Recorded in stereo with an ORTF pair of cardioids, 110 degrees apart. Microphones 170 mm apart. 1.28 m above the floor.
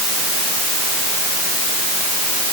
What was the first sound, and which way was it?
Only background noise.